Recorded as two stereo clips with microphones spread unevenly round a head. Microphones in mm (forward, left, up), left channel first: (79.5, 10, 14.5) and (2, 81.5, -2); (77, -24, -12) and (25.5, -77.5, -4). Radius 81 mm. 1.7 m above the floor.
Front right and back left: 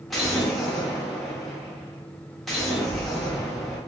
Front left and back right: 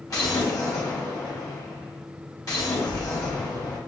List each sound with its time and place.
0.1 s an explosion: 40° left, 1.3 m